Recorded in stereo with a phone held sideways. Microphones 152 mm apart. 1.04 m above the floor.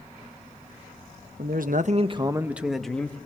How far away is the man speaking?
About 1.0 m.